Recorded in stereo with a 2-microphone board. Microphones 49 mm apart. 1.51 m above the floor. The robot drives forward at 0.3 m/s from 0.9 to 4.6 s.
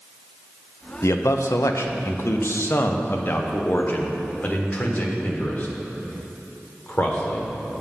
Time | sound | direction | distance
1.0 | a man speaking | 75° left (ahead or behind) | 0.7 m